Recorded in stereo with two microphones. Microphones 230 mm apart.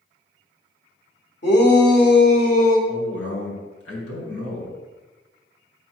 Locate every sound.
1.4 s a shout: 50° left (ahead or behind), 2.5 m; by 2.8 s 40° left (ahead or behind), 3 m
2.9 s a man speaking: 75° left (ahead or behind), 3.5 m